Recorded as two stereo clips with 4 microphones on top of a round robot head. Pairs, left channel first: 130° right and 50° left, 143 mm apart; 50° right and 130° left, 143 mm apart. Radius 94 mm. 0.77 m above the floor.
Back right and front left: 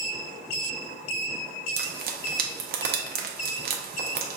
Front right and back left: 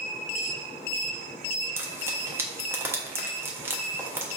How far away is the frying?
About 0.7 m.